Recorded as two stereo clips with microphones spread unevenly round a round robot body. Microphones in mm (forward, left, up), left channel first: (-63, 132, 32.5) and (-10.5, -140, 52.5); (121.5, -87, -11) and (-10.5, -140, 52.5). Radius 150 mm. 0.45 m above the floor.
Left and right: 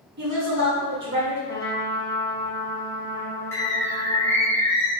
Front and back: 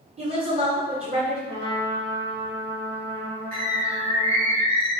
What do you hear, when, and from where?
0.2 s a woman speaking: 115° right, 1.1 m
1.5 s a trumpet: straight behind, 0.8 m
3.5 s a bird: 175° right, 1.5 m